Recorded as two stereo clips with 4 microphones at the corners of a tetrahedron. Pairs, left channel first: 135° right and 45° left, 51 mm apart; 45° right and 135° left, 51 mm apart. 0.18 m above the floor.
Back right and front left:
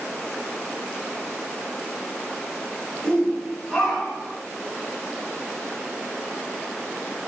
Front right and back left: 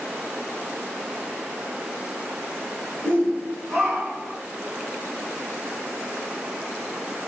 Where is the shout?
70° right, 1.9 m; by 4.4 s 90° left, 1.6 m.